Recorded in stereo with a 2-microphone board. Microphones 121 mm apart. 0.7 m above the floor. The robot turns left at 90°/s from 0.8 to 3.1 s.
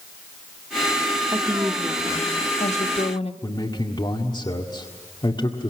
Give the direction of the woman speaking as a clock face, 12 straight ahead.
5 o'clock.